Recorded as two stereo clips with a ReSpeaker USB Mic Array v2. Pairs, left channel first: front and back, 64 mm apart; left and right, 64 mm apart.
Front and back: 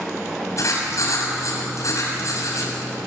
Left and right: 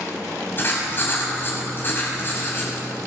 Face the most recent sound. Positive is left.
turn(degrees=35)